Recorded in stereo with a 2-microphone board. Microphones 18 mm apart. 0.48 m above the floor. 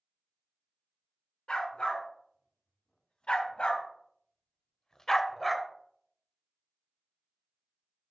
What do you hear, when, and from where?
1.5 s a dog barking: 75° left (ahead or behind), 2 m; by 5.7 s 5° left (ahead or behind), 0.7 m